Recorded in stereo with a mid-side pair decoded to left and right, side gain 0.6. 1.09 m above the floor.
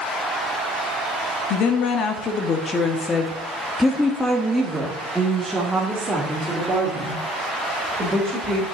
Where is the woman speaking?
65° left, 1.8 m; by 8.6 s 25° right, 4 m.